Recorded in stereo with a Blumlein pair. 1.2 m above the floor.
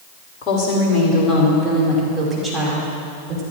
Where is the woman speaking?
30° left, 4.5 m; by 3.4 s 25° right, 4.5 m.